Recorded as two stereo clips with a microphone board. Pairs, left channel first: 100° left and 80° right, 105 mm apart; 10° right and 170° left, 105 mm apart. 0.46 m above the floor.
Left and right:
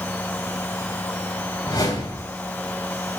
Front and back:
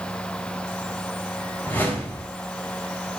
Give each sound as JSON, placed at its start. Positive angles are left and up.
{"t": 1.6, "sound": "a whoosh", "azimuth_deg": 60, "distance_m": 2.5}